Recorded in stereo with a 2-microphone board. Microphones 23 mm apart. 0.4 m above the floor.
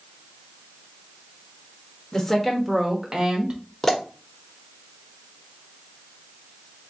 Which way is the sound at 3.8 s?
10° left (ahead or behind).